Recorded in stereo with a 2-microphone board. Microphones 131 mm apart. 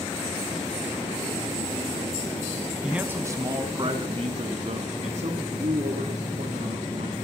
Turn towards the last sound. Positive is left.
turn(degrees=-70)  # may be behind; listen again after turning